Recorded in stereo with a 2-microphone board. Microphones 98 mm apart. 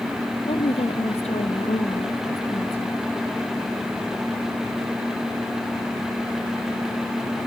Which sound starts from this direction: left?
A woman speaking, at 0.5 s.